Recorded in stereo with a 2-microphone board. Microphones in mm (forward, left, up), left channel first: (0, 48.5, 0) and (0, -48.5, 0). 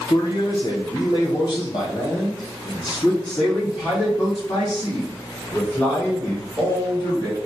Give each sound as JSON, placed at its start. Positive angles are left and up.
{"t": 0.1, "sound": "a man speaking", "side_deg": 55, "distance_m": 1.2}